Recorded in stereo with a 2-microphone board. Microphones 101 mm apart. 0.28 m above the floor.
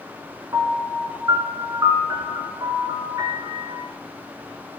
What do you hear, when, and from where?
0.5 s a piano: 35° right (ahead or behind), 3 m